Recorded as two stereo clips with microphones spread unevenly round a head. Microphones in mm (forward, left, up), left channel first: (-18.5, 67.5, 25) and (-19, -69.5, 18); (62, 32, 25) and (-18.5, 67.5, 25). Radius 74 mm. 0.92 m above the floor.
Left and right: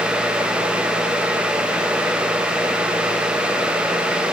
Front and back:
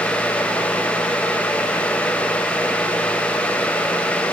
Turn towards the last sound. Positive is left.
No sound to turn to.